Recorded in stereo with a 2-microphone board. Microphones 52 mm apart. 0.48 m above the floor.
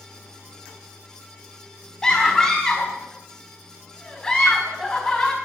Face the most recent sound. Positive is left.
turn(degrees=10)  # may be behind; listen again after turning